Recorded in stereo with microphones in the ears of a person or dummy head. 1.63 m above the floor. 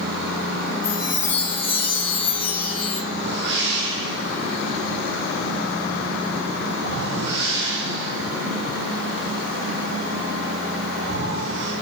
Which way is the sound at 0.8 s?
70° left (ahead or behind).